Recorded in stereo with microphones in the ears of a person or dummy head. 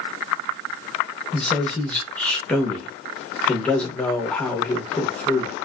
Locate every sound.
1.3 s a man speaking: 5° left (ahead or behind), 0.7 m